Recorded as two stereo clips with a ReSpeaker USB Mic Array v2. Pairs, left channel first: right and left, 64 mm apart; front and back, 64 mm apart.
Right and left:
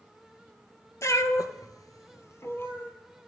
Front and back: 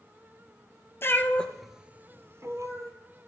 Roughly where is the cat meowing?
Ahead right.